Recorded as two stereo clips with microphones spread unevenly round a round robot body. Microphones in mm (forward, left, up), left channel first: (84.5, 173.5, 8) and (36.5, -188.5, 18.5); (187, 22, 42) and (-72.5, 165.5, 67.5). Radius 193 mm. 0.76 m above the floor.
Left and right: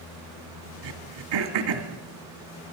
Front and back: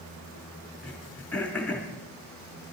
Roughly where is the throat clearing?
Right.